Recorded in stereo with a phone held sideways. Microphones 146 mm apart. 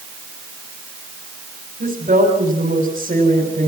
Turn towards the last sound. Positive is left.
turn(degrees=-70)  # may be behind; listen again after turning